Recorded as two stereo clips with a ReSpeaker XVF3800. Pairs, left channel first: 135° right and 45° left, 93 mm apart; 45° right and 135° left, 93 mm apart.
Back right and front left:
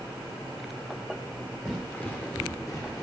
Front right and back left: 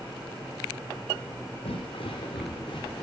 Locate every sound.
1.6 s footsteps: 45° right, 1.3 m; by 3.0 s 85° right, 3 m